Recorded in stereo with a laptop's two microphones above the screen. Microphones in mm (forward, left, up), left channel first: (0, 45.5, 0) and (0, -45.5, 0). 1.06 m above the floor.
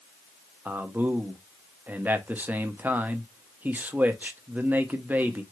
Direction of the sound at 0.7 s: 20° right (ahead or behind).